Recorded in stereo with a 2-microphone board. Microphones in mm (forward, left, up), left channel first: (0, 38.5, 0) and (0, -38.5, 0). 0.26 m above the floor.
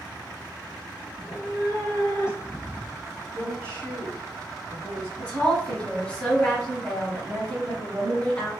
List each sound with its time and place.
1.1 s a cat meowing: 55° left (ahead or behind), 1.6 m; by 3.2 s centre (ahead or behind), 0.7 m
3.3 s a woman speaking: 20° left (ahead or behind), 2.0 m
5.2 s a woman speaking: 15° left (ahead or behind), 1.6 m